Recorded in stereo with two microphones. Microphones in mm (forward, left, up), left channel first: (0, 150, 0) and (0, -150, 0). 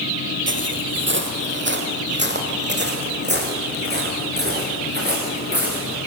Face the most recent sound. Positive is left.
turn(degrees=-30)  # may be behind; listen again after turning